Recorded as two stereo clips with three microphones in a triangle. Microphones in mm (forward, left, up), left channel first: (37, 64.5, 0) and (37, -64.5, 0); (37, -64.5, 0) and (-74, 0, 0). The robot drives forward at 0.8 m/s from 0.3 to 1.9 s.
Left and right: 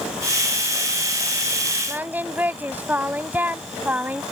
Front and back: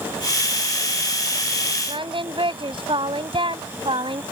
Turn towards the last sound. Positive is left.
turn(degrees=-165)